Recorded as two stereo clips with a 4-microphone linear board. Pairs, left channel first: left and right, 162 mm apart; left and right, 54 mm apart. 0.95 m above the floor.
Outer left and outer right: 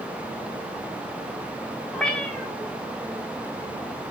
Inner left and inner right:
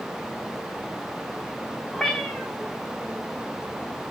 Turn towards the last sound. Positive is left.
turn(degrees=5)  # may be behind; listen again after turning